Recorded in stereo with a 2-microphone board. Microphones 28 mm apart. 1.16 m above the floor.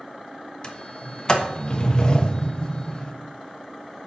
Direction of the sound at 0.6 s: 35° left (ahead or behind).